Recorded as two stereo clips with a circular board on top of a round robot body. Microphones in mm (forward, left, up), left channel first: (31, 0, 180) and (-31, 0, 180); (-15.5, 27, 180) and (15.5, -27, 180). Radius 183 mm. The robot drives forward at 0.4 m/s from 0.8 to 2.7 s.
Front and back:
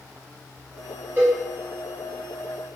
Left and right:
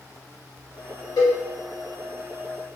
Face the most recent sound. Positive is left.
turn(degrees=145)